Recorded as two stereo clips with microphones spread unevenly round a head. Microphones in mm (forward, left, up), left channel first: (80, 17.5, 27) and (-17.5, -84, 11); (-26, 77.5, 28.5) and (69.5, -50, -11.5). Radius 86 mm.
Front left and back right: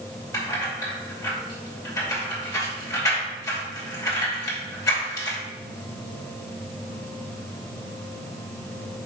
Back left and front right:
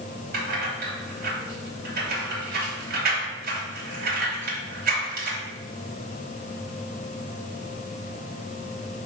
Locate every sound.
0.3 s keys jangling: 20° right, 2.5 m